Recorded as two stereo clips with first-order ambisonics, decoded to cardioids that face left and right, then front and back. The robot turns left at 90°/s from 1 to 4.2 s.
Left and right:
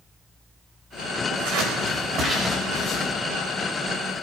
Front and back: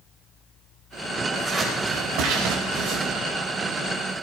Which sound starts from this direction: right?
Scissors, at 1.3 s.